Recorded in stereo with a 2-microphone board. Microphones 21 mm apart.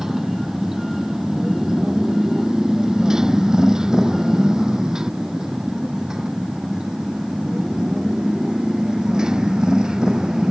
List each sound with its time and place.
0.0 s a motorcycle: 20° right (ahead or behind); by 10.5 s 35° right (ahead or behind)